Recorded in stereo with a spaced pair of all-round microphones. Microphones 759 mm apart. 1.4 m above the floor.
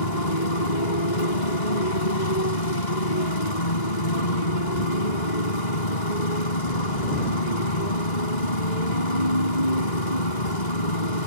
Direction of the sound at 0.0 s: 75° left (ahead or behind).